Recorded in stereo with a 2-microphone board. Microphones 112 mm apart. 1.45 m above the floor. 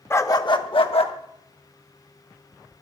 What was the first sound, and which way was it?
A dog barking, 20° left (ahead or behind).